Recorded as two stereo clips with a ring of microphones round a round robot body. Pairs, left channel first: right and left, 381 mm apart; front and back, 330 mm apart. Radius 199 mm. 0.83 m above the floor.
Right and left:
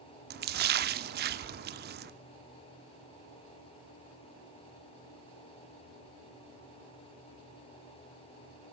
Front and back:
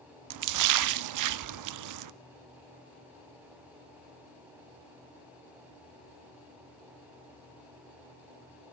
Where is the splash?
155° left, 0.6 m.